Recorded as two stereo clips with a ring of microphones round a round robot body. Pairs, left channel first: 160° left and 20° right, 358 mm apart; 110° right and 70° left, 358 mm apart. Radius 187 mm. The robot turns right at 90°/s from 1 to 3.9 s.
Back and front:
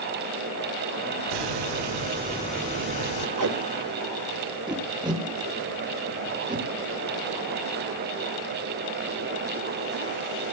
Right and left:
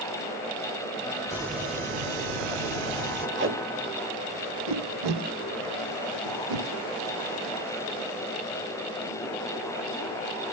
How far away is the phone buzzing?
No phone buzzing in this recording.